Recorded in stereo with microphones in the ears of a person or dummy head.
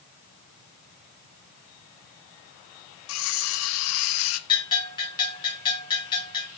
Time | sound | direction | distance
3.1 | cutlery clinking | 70° left (ahead or behind) | 1.5 m
4.5 | a bell | 20° left (ahead or behind) | 6 m